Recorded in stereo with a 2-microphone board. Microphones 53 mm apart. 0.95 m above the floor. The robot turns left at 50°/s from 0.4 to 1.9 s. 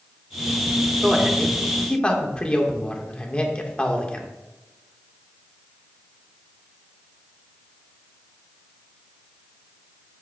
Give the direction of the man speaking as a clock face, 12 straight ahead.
5 o'clock.